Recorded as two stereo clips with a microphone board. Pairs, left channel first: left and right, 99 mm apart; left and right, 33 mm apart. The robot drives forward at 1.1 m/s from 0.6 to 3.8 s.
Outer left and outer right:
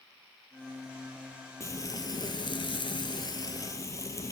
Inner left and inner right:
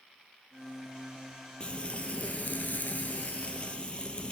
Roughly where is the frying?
Left.